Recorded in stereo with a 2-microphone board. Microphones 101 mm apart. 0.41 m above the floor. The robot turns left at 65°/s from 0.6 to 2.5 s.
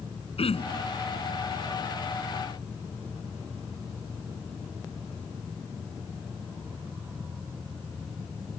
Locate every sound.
0.4 s throat clearing: 75° left (ahead or behind); by 0.9 s 70° left (ahead or behind)